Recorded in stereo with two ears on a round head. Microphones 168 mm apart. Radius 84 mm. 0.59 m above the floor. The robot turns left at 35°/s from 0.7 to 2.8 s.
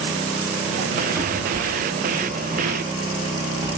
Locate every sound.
1.1 s a cupboard door: 15° right (ahead or behind), 0.8 m; by 3.8 s 20° right (ahead or behind), 0.8 m